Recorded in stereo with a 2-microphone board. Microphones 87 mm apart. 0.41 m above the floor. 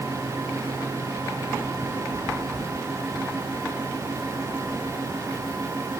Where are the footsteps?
No footsteps in this recording.